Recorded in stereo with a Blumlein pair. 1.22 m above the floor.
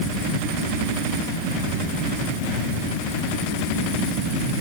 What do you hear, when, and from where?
Only background noise.